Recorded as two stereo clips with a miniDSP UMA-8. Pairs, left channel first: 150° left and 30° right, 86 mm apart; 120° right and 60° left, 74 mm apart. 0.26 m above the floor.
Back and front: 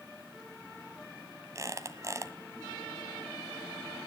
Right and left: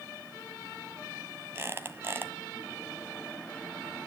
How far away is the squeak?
About 1.4 m.